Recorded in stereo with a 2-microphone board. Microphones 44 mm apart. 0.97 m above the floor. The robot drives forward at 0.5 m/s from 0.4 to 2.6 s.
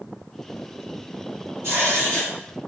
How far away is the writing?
About 2.0 m.